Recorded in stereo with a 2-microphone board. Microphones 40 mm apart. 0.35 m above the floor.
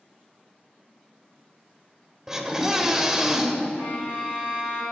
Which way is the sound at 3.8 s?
85° left.